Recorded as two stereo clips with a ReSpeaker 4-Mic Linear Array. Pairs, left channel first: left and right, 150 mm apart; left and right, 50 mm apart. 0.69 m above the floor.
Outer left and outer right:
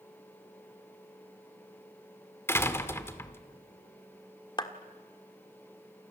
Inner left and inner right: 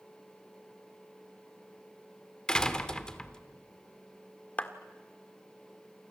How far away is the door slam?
About 1.5 m.